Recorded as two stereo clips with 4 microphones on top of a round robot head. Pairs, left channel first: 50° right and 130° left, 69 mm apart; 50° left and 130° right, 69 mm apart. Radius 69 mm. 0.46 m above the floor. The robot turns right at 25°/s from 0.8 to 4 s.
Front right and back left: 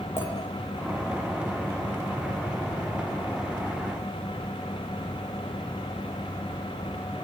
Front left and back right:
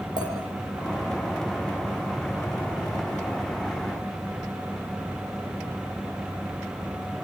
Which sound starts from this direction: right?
A clink, at 0.2 s.